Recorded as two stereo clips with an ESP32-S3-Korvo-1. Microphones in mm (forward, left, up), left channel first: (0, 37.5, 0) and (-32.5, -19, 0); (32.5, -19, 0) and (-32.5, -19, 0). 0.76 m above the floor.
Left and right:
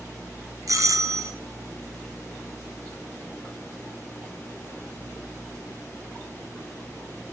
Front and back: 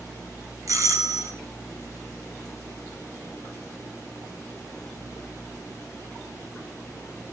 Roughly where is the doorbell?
Behind right.